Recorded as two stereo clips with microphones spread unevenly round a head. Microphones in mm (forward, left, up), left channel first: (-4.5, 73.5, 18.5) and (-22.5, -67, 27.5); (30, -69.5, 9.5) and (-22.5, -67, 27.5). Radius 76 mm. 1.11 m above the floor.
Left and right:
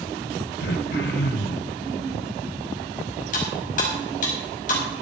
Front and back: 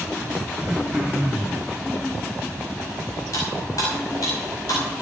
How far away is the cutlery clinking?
About 5 m.